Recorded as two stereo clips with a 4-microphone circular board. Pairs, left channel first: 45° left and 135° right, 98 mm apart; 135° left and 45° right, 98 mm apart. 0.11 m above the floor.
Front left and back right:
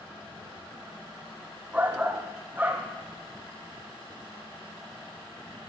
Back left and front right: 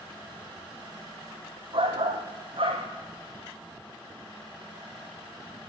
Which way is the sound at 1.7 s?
60° right.